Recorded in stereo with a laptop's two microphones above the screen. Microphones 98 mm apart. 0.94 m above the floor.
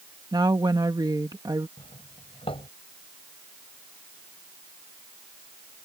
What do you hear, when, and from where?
0.3 s a woman speaking: 45° right (ahead or behind)
1.8 s a doorbell: 75° left (ahead or behind)